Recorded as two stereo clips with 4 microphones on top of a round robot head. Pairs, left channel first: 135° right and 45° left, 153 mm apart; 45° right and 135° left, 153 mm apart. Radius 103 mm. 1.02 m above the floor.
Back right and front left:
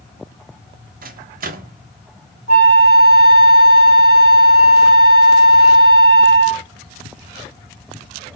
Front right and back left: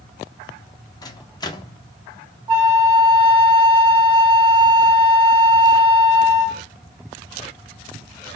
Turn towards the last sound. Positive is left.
turn(degrees=-170)